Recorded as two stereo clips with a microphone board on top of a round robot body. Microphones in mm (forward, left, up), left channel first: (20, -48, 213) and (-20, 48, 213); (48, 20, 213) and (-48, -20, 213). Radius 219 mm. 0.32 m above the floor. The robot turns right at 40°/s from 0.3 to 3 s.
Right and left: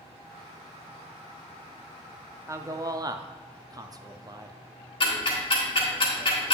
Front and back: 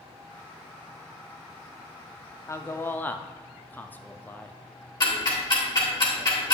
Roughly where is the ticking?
Ahead right.